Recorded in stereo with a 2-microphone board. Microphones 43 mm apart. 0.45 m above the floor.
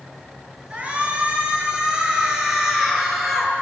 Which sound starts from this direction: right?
A shout, at 0.7 s.